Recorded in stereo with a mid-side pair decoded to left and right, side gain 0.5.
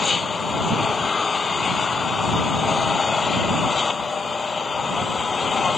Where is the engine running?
30° left.